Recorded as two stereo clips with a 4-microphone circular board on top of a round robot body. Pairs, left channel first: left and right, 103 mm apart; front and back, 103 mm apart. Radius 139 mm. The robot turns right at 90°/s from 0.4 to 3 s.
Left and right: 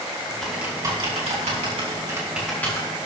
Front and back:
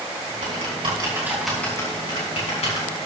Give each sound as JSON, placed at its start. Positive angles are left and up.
{"t": 0.4, "sound": "typing on a keyboard", "azimuth_deg": 175, "distance_m": 4.0}